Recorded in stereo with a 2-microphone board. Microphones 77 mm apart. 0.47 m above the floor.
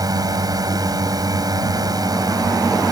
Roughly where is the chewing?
I don't hear chewing.